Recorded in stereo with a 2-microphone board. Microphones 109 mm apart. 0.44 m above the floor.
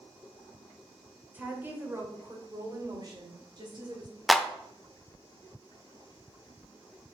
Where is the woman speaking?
15° right (ahead or behind), 1.9 m; by 4.2 s 45° right (ahead or behind), 3 m.